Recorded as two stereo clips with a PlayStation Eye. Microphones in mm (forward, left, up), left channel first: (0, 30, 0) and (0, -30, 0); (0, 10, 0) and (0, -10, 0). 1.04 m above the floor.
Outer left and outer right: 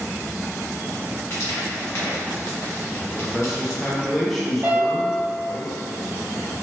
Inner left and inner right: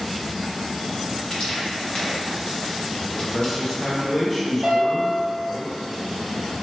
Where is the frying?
50° left (ahead or behind), 1.1 m.